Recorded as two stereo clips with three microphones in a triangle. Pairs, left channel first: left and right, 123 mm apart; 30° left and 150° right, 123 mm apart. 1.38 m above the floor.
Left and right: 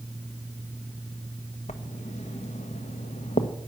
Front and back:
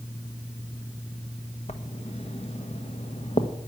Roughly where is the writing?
Ahead left.